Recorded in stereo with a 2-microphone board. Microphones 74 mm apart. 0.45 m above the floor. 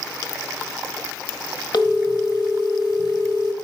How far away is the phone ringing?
About 1.3 m.